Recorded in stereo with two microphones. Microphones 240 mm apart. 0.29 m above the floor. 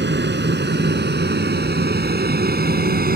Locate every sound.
0.0 s an aircraft: 45° right (ahead or behind); by 3.2 s 40° right (ahead or behind)